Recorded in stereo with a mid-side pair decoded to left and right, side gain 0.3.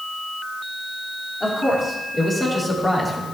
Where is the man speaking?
40° left, 4.5 m; by 3.2 s 30° left, 3 m.